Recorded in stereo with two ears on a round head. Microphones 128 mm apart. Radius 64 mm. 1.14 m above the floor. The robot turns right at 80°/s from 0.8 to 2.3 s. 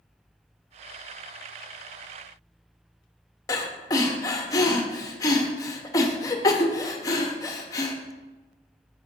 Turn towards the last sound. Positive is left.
turn(degrees=25)  # may be behind; listen again after turning